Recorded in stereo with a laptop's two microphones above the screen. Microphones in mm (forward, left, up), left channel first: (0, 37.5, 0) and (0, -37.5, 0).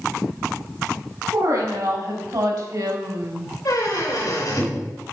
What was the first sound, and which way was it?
A woman speaking, 70° right (ahead or behind).